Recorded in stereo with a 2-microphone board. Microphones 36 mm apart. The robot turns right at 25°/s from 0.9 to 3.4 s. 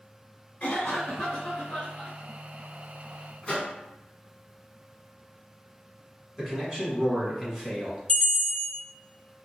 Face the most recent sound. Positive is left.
turn(degrees=30)  # may be behind; listen again after turning